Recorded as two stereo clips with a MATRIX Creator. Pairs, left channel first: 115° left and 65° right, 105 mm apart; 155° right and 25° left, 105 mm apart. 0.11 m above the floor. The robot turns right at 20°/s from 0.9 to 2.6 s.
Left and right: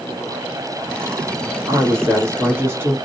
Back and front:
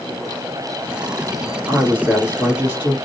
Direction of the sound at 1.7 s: 50° right.